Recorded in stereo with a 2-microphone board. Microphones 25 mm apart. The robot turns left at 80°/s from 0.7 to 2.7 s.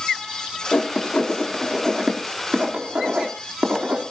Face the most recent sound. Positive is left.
turn(degrees=-65)  # may be behind; listen again after turning